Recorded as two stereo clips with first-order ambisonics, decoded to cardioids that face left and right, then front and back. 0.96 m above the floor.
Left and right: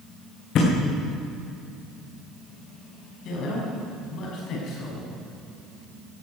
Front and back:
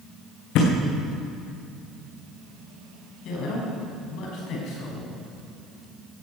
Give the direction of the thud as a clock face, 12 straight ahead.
11 o'clock.